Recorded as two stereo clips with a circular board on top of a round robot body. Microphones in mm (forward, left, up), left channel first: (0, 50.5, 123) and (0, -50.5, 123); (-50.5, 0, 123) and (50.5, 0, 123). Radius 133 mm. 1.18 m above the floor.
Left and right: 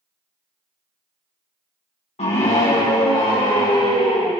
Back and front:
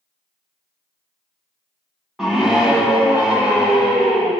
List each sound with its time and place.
2.2 s a scream: 85° left, 1.4 m; by 4.3 s 75° left, 3.5 m